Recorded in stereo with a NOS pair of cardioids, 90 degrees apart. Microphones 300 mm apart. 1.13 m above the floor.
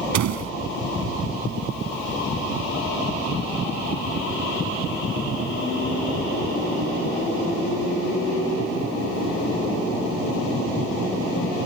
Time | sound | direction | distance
0.1 | a door slam | 70° right | ?